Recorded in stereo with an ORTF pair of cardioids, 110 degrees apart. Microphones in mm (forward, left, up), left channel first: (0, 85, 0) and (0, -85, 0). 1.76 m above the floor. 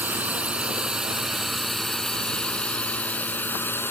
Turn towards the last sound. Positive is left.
turn(degrees=15)